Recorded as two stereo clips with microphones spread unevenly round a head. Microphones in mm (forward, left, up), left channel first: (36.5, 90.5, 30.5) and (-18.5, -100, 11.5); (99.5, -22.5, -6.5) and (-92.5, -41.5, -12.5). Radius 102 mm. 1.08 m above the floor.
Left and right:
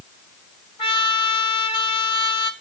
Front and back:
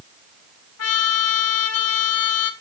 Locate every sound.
0.8 s a trumpet: 10° left, 1.1 m